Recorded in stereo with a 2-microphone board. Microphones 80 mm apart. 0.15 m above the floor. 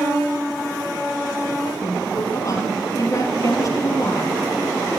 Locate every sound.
1.8 s a woman speaking: 40° left (ahead or behind), 4 m